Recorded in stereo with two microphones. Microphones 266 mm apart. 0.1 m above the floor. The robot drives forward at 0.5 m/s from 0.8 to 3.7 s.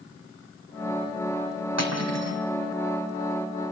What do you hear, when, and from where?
1.8 s cutlery clinking: 75° right (ahead or behind), 3.5 m; by 2.4 s 70° right (ahead or behind), 3.5 m